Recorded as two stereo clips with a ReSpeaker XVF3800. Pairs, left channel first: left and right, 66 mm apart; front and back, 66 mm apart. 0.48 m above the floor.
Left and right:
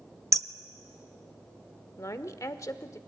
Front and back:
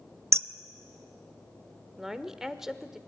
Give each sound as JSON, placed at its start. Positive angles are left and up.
{"t": 0.3, "sound": "hammering", "azimuth_deg": -130, "distance_m": 0.5}
{"t": 2.0, "sound": "a woman speaking", "azimuth_deg": 100, "distance_m": 1.0}